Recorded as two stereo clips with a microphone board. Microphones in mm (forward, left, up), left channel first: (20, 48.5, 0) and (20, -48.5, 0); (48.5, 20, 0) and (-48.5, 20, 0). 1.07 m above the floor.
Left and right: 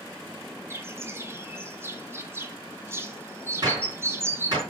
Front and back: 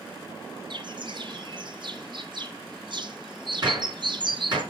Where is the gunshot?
135° right, 4.5 m.